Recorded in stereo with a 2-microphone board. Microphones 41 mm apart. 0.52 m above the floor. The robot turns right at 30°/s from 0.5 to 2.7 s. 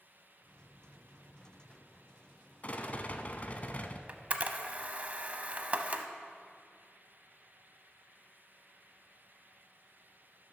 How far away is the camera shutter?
About 0.6 m.